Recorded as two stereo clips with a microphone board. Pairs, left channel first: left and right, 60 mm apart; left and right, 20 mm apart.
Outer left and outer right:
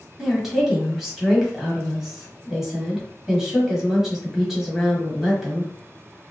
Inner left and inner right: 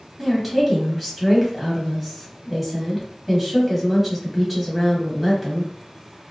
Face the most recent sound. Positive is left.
turn(degrees=-10)  # may be behind; listen again after turning